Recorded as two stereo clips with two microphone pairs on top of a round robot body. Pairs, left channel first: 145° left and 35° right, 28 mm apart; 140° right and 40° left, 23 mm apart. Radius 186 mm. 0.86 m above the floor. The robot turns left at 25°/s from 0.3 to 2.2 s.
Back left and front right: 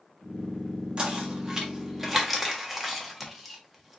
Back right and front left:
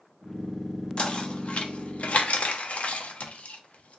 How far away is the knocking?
About 0.7 m.